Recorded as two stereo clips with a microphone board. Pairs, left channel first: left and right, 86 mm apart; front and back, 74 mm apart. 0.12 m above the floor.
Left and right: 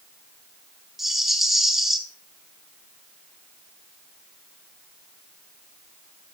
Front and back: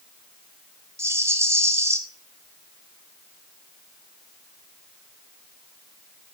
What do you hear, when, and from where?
1.0 s a rattle: 175° right, 0.9 m